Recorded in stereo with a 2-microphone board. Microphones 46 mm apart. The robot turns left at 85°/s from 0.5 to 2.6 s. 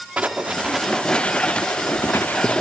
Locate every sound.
0.2 s writing: 30° right (ahead or behind), 1.5 m; by 2.6 s 30° left (ahead or behind), 1.5 m